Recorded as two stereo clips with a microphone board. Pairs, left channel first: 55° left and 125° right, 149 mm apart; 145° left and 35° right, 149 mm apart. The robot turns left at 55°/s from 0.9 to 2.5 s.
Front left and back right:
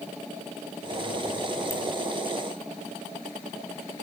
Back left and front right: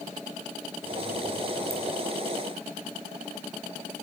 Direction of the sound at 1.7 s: 35° right.